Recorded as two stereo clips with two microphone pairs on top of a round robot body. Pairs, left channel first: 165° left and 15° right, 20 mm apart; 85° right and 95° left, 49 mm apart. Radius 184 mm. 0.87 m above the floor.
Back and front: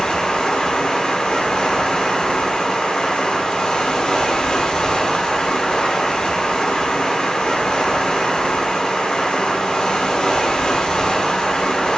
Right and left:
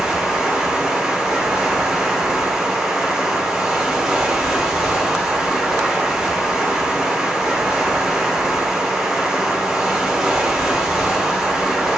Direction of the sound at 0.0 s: Straight behind.